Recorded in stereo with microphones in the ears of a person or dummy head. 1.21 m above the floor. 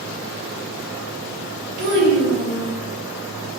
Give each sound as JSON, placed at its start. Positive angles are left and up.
{"t": 1.8, "sound": "a child speaking", "side_deg": -60, "distance_m": 3.5}